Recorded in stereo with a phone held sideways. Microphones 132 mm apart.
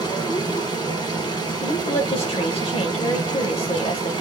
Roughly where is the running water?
Left.